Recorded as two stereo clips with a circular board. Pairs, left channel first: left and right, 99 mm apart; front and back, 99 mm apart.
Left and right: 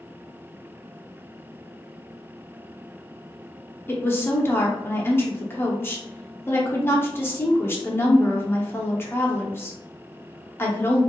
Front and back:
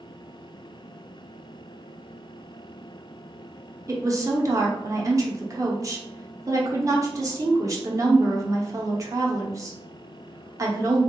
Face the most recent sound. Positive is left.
turn(degrees=145)